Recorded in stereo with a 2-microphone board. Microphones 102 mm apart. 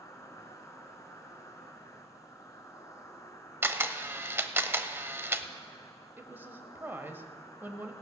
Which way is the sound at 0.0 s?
30° left (ahead or behind).